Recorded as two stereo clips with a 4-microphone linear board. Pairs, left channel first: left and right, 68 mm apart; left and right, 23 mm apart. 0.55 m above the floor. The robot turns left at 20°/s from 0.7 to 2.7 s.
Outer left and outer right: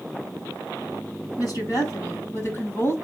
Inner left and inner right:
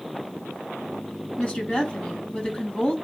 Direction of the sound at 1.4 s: 65° left (ahead or behind).